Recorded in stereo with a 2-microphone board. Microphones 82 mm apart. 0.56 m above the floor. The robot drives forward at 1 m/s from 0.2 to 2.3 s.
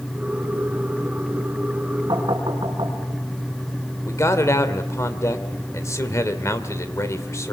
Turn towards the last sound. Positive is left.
turn(degrees=40)  # may be behind; listen again after turning